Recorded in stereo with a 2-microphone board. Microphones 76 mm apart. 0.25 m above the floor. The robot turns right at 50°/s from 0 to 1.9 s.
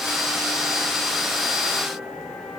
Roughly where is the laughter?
No laughter in this recording.